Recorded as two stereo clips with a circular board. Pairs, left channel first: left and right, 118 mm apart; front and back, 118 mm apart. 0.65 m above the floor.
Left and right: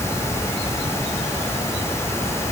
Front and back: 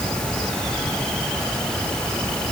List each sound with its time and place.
Only background noise.